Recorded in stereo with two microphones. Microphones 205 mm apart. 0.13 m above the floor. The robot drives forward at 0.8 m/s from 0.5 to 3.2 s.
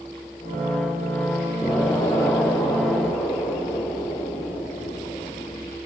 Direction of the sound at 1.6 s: 15° left (ahead or behind).